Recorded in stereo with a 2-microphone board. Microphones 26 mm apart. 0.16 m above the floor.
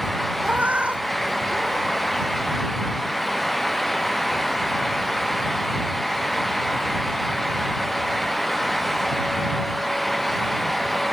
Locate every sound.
0.4 s a cat meowing: 70° right (ahead or behind); by 2.0 s 45° right (ahead or behind)